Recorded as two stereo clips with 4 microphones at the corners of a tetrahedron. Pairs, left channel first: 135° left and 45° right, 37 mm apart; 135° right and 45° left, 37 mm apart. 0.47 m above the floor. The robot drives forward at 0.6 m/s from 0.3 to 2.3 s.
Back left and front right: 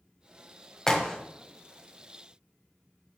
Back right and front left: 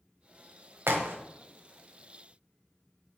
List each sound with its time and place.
0.9 s a crack: 55° left, 1.2 m; by 1.1 s 65° left, 1.2 m